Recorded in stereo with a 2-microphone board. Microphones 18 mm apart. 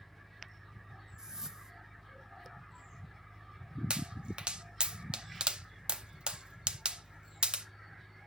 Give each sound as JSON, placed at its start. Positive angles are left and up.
{"t": 1.2, "sound": "a whoosh", "side_deg": -45, "distance_m": 0.8}
{"t": 3.9, "sound": "a pop", "side_deg": -85, "distance_m": 0.5}